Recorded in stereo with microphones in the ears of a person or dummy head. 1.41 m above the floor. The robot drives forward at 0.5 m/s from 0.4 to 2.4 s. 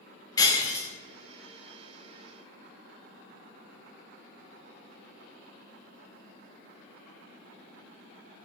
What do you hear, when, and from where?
0.4 s breaking glass: 25° left (ahead or behind), 1.2 m; by 0.9 s 20° left (ahead or behind), 1.4 m